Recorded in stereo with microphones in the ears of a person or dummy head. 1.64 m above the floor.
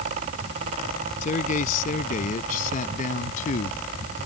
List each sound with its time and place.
1.2 s a man speaking: 40° left (ahead or behind)